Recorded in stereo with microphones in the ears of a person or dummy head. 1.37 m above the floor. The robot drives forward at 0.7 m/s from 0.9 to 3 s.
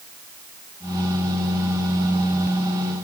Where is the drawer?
I don't hear a drawer.